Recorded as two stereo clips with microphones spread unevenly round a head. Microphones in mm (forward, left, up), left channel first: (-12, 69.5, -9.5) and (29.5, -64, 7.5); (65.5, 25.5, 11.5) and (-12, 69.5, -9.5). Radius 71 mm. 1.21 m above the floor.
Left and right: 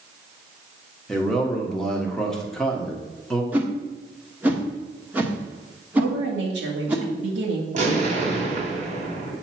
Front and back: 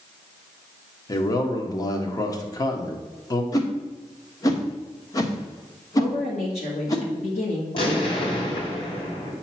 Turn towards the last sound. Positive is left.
turn(degrees=-45)